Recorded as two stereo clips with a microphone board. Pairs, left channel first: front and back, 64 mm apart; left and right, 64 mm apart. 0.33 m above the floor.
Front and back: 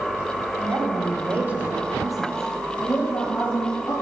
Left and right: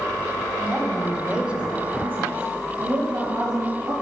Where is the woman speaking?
175° left, 1.4 m; by 3.9 s 45° right, 2.0 m.